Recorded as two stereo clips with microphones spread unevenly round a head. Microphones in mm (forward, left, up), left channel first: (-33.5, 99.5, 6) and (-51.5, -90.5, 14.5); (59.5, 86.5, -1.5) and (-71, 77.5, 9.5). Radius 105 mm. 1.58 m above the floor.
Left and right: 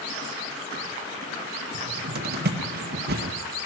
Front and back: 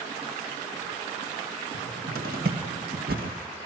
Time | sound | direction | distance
1.7 | a cupboard door | 135° right | 2 m